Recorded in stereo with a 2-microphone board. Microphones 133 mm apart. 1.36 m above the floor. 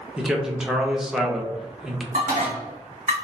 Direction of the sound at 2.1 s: 70° right (ahead or behind).